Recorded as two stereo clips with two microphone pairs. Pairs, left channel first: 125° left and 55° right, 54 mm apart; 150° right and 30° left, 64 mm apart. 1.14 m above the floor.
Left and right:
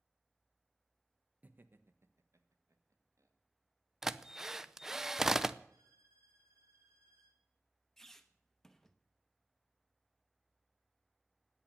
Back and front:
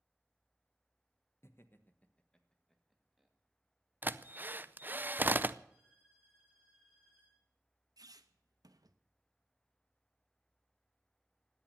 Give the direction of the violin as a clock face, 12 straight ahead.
1 o'clock.